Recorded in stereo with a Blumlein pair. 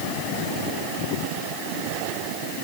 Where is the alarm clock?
I don't hear an alarm clock.